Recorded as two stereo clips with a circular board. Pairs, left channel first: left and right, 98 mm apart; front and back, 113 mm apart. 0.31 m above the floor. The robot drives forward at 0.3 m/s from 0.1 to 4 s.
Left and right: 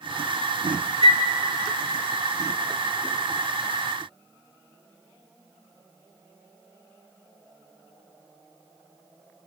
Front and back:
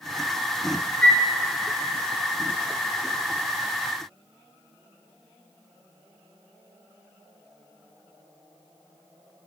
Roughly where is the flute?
Right.